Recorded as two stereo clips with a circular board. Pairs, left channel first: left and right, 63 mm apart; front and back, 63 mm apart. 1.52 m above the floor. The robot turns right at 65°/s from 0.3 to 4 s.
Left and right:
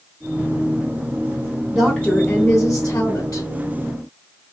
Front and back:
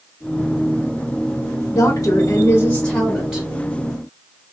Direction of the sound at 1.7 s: 5° right.